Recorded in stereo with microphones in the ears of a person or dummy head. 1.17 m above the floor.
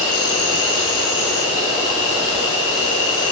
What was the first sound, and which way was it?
An insect, 80° left.